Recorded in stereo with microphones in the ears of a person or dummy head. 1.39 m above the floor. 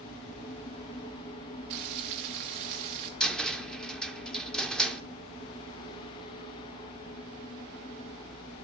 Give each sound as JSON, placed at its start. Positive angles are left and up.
{"t": 1.7, "sound": "frying", "side_deg": -40, "distance_m": 1.0}
{"t": 3.2, "sound": "a cupboard door", "side_deg": 5, "distance_m": 0.8}